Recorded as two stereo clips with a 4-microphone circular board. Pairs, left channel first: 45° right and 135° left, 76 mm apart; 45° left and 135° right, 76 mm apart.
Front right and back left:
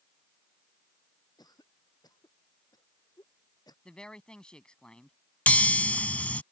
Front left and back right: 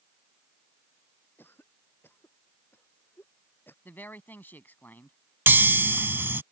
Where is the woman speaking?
20° left.